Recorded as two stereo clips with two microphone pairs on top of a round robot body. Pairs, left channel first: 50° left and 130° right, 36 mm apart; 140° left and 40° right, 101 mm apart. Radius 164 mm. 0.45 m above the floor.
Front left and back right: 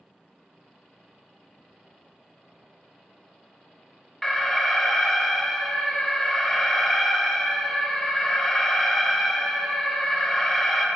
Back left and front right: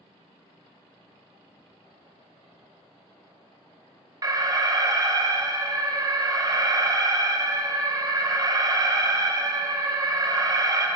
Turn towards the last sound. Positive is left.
turn(degrees=-15)